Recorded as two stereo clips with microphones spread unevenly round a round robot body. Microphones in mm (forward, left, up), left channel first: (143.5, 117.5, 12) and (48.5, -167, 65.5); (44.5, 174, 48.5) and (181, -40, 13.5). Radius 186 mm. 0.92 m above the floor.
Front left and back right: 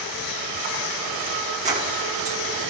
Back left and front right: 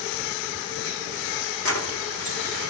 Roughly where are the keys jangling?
Behind.